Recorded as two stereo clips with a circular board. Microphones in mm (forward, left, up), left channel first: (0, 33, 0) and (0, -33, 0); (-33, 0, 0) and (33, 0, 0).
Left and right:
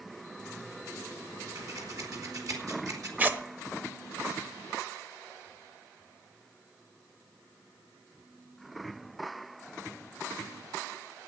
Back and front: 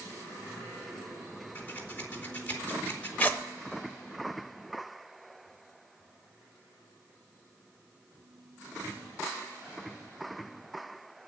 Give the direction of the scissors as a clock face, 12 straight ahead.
4 o'clock.